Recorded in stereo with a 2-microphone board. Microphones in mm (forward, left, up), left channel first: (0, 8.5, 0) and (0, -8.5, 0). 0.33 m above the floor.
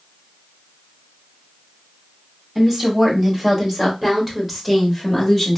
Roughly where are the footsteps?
No footsteps in this recording.